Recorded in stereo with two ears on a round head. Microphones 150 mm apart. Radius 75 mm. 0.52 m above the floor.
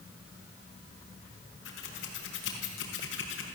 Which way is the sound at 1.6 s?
80° left.